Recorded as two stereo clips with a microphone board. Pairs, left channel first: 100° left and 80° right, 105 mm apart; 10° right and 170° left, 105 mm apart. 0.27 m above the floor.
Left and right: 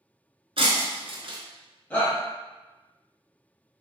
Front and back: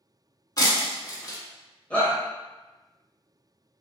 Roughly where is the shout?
Ahead left.